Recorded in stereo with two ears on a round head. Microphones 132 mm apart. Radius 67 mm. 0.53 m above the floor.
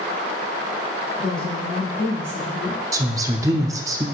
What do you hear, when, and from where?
1.2 s a woman speaking: 5° left (ahead or behind), 3 m
2.9 s a woman speaking: 20° right (ahead or behind), 0.7 m